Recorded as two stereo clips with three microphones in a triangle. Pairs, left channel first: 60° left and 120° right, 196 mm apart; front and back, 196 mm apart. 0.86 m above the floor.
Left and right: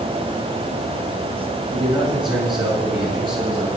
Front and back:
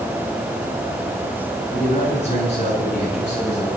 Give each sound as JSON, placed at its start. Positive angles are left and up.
{"t": 1.7, "sound": "a man speaking", "azimuth_deg": -55, "distance_m": 9.0}